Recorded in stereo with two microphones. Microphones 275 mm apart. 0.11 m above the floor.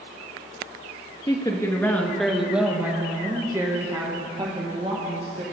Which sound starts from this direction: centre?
A woman speaking, at 1.3 s.